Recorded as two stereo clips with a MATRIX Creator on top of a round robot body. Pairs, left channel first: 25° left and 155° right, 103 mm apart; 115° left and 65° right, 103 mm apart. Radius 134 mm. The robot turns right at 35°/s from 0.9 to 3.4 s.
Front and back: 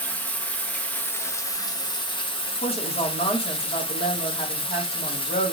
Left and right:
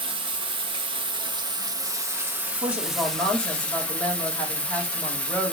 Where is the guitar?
No guitar in this recording.